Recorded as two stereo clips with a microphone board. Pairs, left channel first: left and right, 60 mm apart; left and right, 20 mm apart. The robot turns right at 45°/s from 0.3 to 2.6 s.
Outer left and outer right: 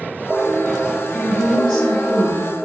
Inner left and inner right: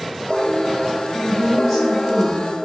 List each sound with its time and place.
1.1 s a woman speaking: 150° left, 1.9 m; by 2.5 s 150° right, 1.9 m